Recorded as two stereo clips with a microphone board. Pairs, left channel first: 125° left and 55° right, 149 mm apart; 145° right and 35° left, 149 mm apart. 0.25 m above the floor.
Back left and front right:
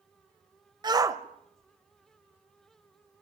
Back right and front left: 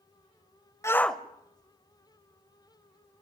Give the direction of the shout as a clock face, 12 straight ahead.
3 o'clock.